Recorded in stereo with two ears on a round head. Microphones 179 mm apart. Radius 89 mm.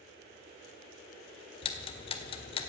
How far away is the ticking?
About 1.8 m.